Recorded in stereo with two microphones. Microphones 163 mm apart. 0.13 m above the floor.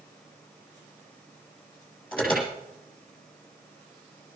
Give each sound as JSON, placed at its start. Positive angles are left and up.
{"t": 2.1, "sound": "an alarm", "side_deg": 5, "distance_m": 9.0}